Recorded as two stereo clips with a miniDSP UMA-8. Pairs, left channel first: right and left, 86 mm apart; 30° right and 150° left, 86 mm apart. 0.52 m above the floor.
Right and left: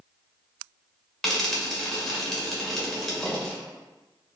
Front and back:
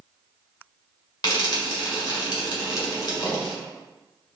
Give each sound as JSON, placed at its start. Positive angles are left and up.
{"t": 1.2, "sound": "frying", "azimuth_deg": -5, "distance_m": 1.4}